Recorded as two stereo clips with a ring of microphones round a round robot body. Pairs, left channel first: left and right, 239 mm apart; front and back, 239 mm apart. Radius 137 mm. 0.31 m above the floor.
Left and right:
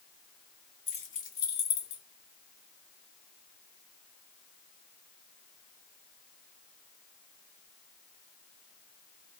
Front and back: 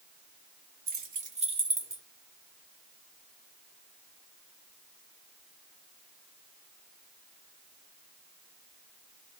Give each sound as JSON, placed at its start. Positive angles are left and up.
{"t": 0.9, "sound": "keys jangling", "azimuth_deg": 150, "distance_m": 1.3}